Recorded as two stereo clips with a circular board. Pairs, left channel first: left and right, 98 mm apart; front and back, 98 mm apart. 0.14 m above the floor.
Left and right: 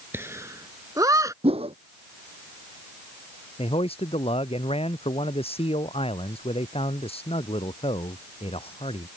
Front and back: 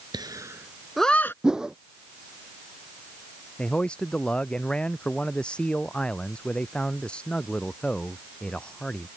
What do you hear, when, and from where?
0.1 s laughter: 150° right; by 1.3 s 55° right
1.4 s a whoosh: 95° right
3.6 s a man speaking: 80° left